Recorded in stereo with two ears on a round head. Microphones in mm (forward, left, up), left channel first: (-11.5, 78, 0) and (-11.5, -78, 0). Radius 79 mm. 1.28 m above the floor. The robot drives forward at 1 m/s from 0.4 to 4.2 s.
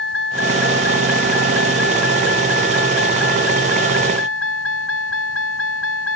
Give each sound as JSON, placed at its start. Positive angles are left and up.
{"t": 0.0, "sound": "a vehicle", "side_deg": 65}